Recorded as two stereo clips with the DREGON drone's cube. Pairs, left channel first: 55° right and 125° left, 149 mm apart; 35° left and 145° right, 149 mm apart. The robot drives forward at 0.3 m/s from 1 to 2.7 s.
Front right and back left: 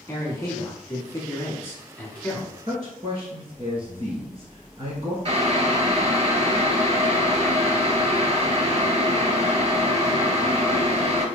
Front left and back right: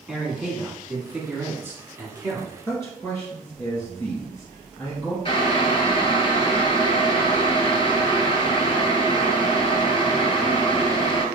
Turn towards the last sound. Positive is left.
turn(degrees=85)